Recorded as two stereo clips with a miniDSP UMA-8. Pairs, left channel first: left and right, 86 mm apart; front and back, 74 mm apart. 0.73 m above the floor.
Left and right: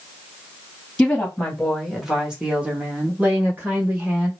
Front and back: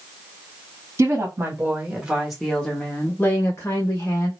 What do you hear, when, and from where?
1.0 s a woman speaking: 170° left, 1.2 m; by 4.3 s 30° right, 1.6 m